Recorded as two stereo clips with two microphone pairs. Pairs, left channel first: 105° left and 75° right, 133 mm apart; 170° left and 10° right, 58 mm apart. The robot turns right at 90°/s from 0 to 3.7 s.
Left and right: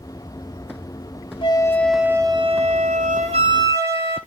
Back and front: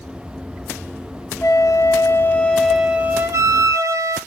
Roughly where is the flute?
Behind left.